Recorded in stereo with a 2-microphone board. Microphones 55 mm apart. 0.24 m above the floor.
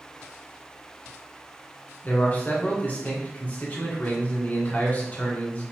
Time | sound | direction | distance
2.0 | a man speaking | 30° left (ahead or behind) | 3 m